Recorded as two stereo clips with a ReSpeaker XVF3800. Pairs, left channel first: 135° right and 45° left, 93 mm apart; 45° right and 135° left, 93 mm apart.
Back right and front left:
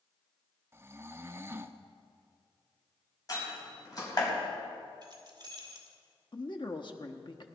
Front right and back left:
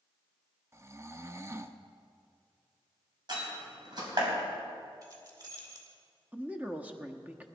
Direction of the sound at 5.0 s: 90° left.